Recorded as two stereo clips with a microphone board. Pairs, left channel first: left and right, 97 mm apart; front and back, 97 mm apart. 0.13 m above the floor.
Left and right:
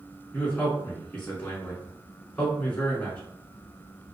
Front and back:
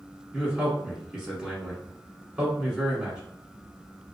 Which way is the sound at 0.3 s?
120° left.